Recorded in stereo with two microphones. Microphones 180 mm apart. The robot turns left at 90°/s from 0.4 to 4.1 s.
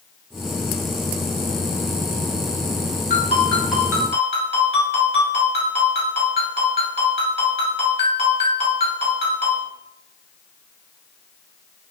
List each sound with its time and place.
3.1 s a ringtone: 55° left, 1.8 m; by 9.7 s 35° right, 1.8 m